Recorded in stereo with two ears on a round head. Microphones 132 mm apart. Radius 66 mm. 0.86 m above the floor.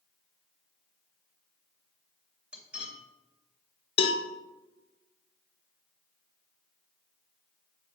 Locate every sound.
2.5 s cutlery clinking: 10° right (ahead or behind), 2 m
4.0 s a cowbell: 35° left (ahead or behind), 0.9 m